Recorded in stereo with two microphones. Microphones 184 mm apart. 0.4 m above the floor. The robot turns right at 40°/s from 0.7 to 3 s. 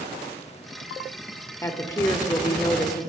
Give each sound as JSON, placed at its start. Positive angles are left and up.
{"t": 1.6, "sound": "a woman speaking", "side_deg": 15, "distance_m": 0.9}